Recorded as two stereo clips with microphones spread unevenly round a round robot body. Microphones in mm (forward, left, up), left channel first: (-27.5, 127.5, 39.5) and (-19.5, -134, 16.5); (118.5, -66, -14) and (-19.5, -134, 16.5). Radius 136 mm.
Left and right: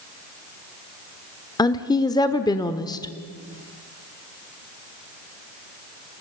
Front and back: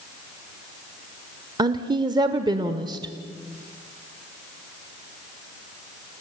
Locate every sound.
1.6 s a woman speaking: 155° left, 1.0 m